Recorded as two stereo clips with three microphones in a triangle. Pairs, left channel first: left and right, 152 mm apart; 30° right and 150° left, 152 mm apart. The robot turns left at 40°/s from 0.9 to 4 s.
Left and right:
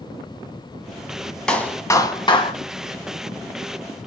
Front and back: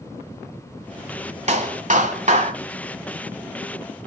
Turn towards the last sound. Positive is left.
turn(degrees=70)